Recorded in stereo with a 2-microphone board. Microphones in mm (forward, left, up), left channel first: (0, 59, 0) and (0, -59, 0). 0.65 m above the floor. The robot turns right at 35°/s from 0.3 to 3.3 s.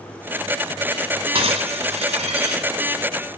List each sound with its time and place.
1.4 s breaking glass: 130° right, 2 m; by 2.7 s 85° right, 2 m